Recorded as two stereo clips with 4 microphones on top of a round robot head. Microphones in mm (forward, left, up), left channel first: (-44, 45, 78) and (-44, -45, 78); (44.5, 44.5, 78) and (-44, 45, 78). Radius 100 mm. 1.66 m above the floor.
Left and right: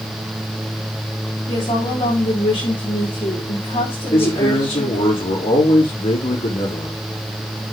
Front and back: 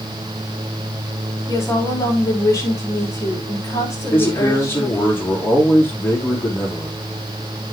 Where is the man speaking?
65° left, 5 m.